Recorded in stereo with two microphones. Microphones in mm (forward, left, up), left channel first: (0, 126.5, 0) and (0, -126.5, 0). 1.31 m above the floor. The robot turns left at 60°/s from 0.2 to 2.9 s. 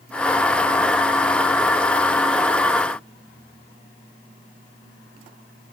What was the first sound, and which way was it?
Only background noise.